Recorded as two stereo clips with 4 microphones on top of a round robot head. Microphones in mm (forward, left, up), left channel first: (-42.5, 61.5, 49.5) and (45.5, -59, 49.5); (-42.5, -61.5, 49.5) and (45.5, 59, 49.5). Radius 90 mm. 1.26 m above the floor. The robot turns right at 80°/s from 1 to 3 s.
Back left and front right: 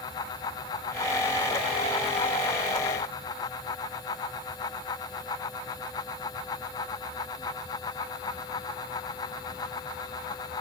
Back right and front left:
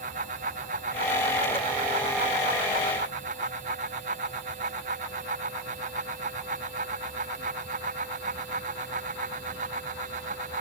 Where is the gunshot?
I don't hear a gunshot.